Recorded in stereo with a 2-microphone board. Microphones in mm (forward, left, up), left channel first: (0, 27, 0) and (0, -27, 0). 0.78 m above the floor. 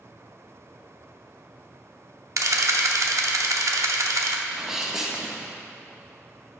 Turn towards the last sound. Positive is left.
turn(degrees=-10)  # may be behind; listen again after turning